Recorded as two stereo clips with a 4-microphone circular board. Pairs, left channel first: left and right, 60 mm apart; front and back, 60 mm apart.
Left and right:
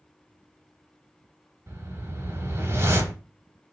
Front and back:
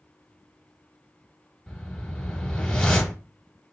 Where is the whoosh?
75° right, 0.9 m.